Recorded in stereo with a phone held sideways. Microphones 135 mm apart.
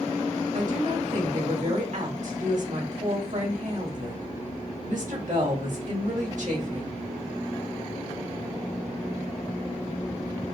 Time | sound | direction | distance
0.5 | a woman speaking | 70° right (ahead or behind) | 2 m